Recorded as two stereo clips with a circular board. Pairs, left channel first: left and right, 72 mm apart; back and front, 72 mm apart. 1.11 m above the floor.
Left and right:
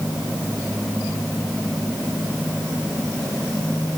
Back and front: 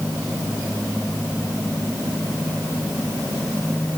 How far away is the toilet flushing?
No toilet flushing in this recording.